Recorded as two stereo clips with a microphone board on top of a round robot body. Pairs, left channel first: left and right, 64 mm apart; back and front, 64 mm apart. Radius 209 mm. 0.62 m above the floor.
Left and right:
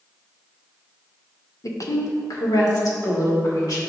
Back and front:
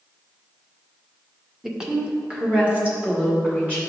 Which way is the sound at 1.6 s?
85° left.